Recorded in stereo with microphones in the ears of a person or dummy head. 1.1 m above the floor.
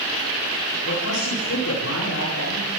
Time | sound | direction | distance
0.8 | a man speaking | 80° left | 10 m